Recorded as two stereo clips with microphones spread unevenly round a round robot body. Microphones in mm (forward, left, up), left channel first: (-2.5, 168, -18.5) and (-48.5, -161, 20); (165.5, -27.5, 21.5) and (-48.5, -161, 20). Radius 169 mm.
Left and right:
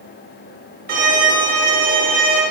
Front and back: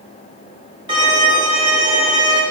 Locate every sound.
0.9 s a violin: 125° right, 1.2 m